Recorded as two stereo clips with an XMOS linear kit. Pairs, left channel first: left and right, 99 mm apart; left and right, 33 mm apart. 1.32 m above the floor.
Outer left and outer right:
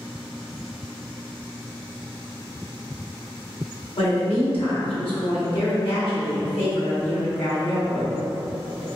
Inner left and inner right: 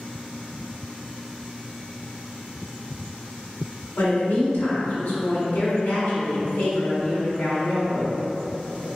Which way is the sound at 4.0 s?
65° left (ahead or behind).